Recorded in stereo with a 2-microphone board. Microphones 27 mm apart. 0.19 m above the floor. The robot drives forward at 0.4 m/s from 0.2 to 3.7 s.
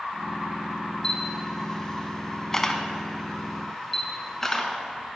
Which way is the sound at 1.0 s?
25° left (ahead or behind).